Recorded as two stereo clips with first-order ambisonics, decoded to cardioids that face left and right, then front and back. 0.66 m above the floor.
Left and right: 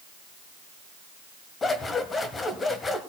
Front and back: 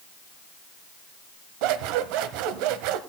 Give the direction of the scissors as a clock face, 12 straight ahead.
7 o'clock.